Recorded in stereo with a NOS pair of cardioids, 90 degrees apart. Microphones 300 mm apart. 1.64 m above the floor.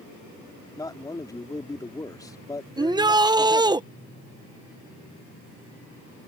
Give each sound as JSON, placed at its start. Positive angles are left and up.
{"t": 0.8, "sound": "a man speaking", "azimuth_deg": 10}
{"t": 2.8, "sound": "a shout", "azimuth_deg": -15}